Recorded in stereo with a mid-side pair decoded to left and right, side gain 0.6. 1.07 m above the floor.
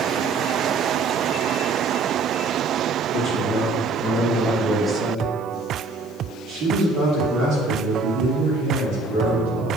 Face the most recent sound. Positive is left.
turn(degrees=-75)